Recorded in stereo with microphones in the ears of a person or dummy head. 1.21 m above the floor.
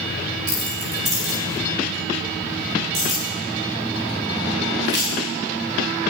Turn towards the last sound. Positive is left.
turn(degrees=-30)  # may be behind; listen again after turning